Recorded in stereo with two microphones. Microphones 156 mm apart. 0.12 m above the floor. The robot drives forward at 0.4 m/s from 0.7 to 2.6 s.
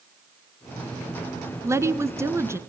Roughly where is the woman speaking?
Centre.